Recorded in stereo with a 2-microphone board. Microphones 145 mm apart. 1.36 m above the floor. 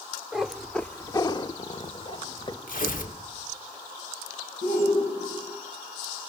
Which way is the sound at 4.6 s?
80° left.